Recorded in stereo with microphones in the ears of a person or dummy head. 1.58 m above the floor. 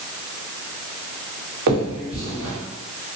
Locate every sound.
1.7 s a finger snap: 55° right (ahead or behind), 1.2 m